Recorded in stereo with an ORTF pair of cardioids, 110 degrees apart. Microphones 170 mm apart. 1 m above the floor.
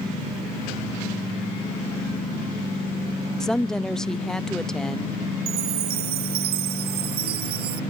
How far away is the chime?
About 0.8 m.